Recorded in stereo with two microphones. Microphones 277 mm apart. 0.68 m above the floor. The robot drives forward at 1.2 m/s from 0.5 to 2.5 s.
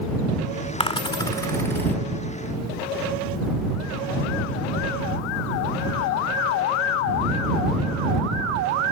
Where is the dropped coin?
20° left (ahead or behind), 0.6 m; by 2.0 s 5° left (ahead or behind), 1.5 m.